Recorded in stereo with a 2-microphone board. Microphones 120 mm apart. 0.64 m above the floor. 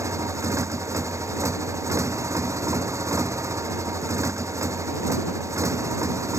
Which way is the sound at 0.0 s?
25° right (ahead or behind).